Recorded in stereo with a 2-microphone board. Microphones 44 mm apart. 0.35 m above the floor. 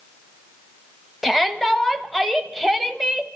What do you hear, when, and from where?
1.2 s a shout: centre (ahead or behind), 1.5 m